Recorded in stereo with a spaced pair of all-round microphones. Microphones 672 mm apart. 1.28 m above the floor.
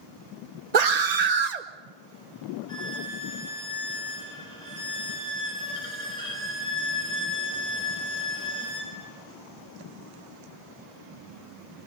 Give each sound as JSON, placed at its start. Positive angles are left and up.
{"t": 0.7, "sound": "a scream", "side_deg": -70, "distance_m": 1.0}
{"t": 2.7, "sound": "a violin", "side_deg": 65, "distance_m": 4.5}